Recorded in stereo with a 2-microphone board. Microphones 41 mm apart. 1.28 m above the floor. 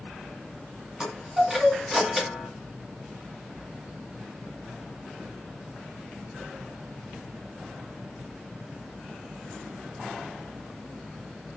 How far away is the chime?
About 1.8 m.